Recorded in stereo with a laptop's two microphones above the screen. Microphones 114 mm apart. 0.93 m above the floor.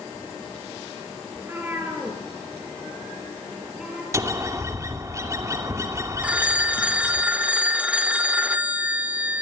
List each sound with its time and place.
1.4 s a cat meowing: 20° right (ahead or behind), 5.5 m; by 4.0 s 5° right (ahead or behind), 8 m
4.1 s a bird: 25° right (ahead or behind), 2.5 m
6.2 s a phone ringing: 10° right (ahead or behind), 1.7 m